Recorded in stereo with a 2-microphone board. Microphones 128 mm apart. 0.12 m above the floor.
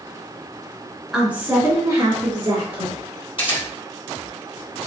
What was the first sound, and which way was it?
A woman speaking, 5° right (ahead or behind).